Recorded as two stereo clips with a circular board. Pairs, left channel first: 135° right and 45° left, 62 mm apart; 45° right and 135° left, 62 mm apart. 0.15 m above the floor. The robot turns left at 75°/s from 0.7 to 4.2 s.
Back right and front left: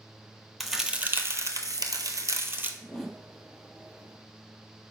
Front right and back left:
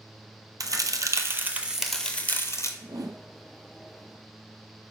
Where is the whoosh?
155° left, 0.6 m; by 3.2 s 125° left, 0.6 m.